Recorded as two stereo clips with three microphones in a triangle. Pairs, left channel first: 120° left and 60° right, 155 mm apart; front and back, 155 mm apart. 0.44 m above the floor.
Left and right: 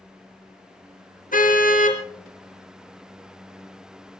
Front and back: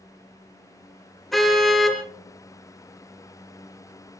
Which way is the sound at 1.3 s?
90° left.